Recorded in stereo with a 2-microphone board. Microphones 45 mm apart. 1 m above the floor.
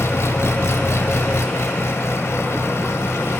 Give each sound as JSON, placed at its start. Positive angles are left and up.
{"t": 0.0, "sound": "an engine running", "side_deg": 75, "distance_m": 2.5}